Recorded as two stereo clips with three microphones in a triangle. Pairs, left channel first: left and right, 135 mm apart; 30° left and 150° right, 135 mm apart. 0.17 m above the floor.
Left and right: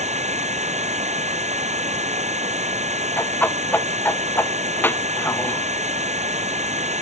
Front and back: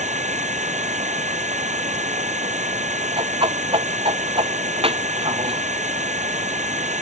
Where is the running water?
120° right.